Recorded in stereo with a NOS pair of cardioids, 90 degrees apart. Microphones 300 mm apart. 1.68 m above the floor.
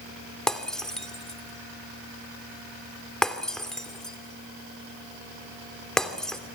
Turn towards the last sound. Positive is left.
turn(degrees=0)